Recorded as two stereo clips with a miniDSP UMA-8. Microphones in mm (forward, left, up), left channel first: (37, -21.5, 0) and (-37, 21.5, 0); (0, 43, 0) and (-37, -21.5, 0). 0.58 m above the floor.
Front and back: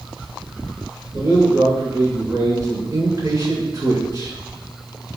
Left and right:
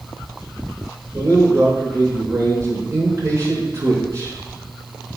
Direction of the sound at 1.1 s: 165° right.